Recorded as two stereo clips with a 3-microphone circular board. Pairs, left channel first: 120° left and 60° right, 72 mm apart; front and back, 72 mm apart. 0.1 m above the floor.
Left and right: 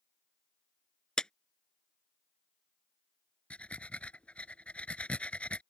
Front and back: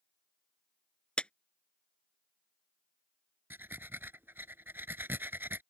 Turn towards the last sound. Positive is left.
turn(degrees=175)